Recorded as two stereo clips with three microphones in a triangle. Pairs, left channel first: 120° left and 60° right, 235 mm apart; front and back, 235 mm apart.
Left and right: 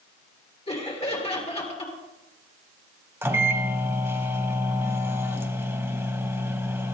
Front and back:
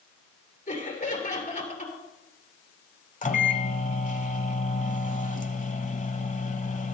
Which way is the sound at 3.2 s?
10° left.